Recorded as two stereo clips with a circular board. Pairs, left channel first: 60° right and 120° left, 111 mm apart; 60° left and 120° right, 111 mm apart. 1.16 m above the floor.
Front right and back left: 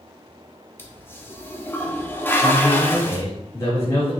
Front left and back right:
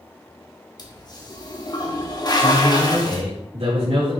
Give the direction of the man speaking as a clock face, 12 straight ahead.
4 o'clock.